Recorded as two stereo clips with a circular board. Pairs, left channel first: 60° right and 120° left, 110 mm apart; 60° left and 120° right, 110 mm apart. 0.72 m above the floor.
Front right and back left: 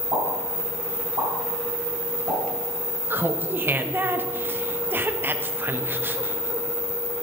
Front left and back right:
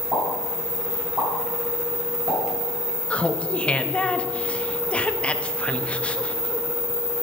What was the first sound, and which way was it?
A pop, 170° left.